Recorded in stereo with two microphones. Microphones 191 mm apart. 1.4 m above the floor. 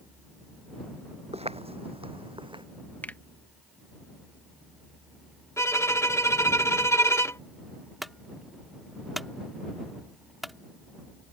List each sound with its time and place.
1.3 s footsteps: 30° right (ahead or behind); by 2.6 s 25° right (ahead or behind)
3.0 s a finger snap: 10° left (ahead or behind)
5.6 s a violin: 15° left (ahead or behind)
8.0 s a clunk: centre (ahead or behind)